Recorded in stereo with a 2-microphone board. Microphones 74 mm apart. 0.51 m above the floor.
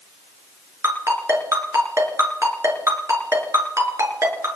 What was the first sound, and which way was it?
A ringtone, 40° right (ahead or behind).